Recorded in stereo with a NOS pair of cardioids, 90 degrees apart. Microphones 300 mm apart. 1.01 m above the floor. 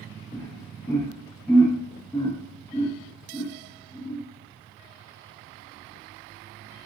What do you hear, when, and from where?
0.3 s laughter: straight ahead, 0.7 m